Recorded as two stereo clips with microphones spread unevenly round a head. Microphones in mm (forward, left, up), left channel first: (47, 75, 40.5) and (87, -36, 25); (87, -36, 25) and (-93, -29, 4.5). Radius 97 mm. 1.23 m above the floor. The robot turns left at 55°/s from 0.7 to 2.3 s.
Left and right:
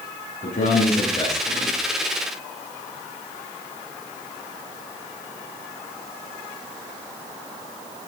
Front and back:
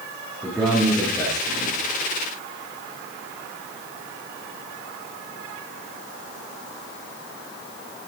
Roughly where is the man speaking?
Left.